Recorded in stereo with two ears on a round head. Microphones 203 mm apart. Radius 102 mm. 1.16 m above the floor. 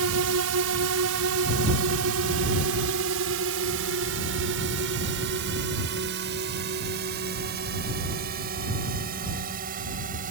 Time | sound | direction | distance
0.0 | a drone | 75° right (ahead or behind) | ?